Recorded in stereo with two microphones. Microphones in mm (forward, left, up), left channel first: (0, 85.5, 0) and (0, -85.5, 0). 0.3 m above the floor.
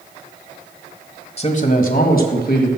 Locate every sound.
1.4 s a man speaking: 40° left (ahead or behind), 1.2 m; by 2.7 s 65° left (ahead or behind), 2.5 m